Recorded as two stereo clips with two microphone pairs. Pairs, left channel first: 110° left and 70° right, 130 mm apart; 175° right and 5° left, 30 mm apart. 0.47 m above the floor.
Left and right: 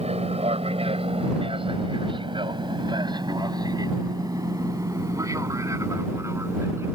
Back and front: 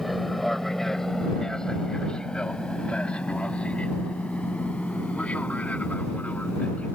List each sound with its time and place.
0.0 s an aircraft: 90° right; by 7.0 s 140° right